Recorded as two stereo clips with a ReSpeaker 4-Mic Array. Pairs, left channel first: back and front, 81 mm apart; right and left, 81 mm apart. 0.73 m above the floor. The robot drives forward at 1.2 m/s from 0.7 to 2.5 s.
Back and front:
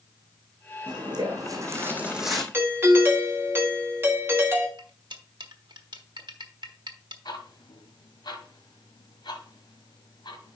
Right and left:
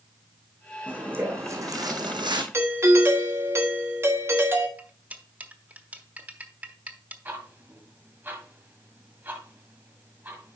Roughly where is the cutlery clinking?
Ahead.